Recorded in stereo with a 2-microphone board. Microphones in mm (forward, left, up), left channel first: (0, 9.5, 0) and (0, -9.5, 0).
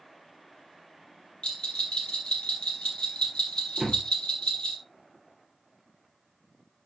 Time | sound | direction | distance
1.4 | a bell | 75° left (ahead or behind) | 3.5 m
3.8 | a door slam | 5° right (ahead or behind) | 3 m